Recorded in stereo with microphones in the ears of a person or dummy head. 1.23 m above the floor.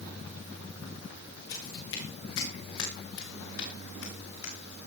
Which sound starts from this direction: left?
Footsteps, at 1.5 s.